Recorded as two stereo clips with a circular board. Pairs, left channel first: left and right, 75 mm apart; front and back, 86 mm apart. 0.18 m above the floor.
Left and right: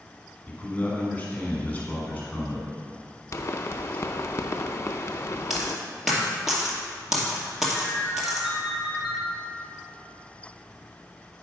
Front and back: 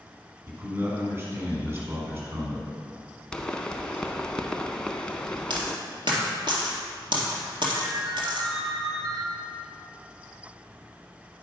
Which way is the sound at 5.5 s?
175° right.